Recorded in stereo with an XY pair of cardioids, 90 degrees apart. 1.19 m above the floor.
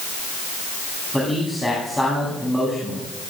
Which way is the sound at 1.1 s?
10° left.